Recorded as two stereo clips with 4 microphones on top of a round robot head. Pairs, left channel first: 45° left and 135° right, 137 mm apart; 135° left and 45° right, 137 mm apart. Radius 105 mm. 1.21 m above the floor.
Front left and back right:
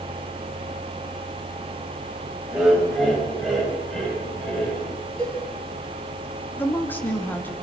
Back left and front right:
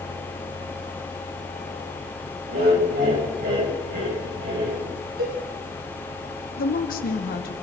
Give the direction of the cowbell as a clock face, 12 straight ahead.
1 o'clock.